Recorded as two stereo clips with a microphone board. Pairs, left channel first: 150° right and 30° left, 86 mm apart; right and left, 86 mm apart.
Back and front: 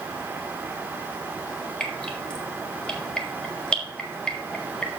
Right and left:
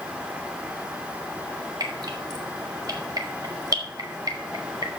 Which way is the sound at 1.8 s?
130° left.